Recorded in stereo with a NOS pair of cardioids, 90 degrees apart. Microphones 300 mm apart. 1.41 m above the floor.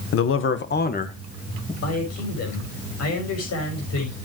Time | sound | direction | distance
0.1 | a man speaking | 50° left | 1.3 m
1.8 | a man speaking | 55° left | 6 m